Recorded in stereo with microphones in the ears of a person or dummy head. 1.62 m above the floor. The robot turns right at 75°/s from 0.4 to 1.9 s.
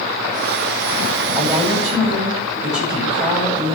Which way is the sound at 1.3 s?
165° left.